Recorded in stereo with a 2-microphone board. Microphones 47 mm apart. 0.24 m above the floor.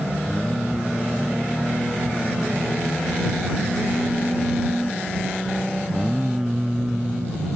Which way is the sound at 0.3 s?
10° right (ahead or behind).